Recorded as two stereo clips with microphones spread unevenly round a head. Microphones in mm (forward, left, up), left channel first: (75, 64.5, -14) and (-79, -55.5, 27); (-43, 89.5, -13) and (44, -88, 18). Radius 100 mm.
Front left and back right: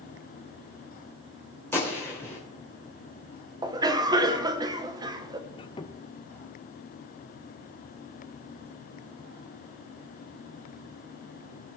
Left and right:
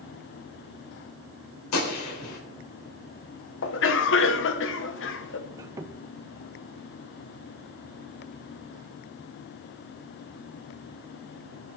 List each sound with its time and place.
1.7 s a gunshot: 120° left, 3 m
3.6 s a cough: 145° left, 1.1 m
5.5 s a squeak: 30° right, 0.6 m